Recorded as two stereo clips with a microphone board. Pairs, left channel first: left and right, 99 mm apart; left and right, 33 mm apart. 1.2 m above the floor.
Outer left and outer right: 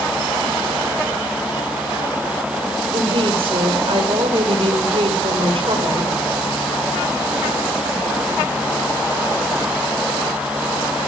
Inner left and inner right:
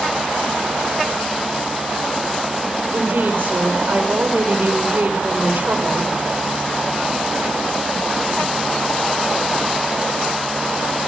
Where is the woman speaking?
70° right (ahead or behind), 4.5 m.